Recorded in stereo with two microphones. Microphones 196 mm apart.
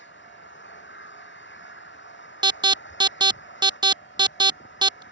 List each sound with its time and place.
0.0 s an engine running: 70° left (ahead or behind)
2.4 s an alarm: 20° right (ahead or behind)